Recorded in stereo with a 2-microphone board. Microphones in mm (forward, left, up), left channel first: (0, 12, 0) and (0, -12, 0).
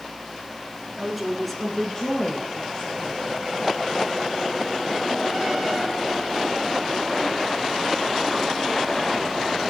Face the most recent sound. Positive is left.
turn(degrees=45)  # may be behind; listen again after turning